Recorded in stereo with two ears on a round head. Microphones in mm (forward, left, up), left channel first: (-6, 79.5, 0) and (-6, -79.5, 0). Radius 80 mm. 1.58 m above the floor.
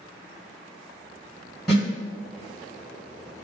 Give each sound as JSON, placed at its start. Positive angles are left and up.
{"t": 1.7, "sound": "a snare drum", "side_deg": 0, "distance_m": 1.9}